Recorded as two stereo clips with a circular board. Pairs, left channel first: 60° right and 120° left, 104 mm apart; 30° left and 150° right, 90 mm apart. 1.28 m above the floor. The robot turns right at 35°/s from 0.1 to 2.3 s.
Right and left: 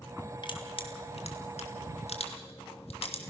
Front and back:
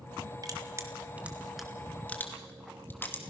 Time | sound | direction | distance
0.4 | crushing | 100° right | 2.5 m